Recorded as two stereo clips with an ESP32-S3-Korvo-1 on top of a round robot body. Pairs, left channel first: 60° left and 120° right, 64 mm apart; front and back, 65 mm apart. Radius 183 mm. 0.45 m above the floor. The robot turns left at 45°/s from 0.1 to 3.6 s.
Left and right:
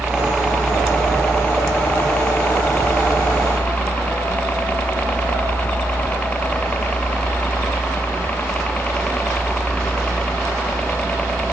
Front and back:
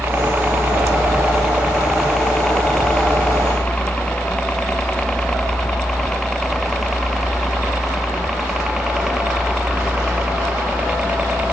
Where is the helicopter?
165° left; by 11.5 s 120° left.